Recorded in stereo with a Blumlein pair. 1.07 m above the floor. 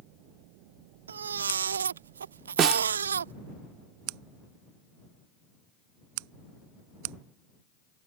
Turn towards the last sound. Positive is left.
turn(degrees=-30)